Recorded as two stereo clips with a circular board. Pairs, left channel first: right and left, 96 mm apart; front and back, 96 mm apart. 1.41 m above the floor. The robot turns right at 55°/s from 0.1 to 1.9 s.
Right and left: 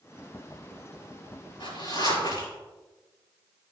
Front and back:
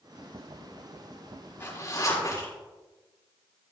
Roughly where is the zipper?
Right.